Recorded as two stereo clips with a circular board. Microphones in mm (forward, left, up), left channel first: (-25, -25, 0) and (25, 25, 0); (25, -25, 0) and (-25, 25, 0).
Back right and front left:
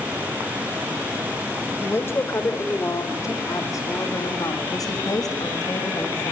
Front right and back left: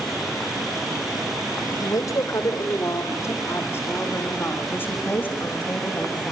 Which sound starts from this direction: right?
A woman speaking, at 1.8 s.